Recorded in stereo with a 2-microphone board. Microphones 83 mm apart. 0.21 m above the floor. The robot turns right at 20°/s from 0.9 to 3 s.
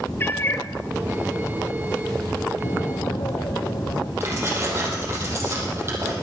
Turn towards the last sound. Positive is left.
turn(degrees=-30)  # may be behind; listen again after turning